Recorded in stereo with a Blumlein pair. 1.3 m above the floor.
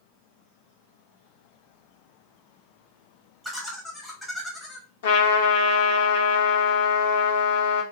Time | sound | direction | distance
3.4 | laughter | straight ahead | 0.9 m
5.0 | a trumpet | 55° left | 0.8 m